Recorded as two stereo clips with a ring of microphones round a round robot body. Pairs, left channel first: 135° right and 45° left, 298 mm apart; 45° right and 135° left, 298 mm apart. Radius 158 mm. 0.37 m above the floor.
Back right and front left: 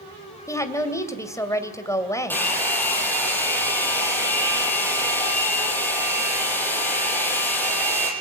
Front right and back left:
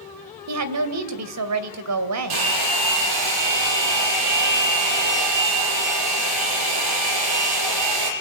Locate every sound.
0.5 s a woman speaking: 145° left, 2.5 m
2.3 s a hair dryer: 140° left, 6.5 m